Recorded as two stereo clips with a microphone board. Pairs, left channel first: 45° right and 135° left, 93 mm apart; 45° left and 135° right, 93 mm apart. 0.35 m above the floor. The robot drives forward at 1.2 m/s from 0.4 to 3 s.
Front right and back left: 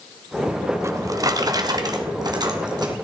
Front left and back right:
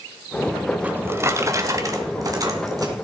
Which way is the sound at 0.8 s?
160° left.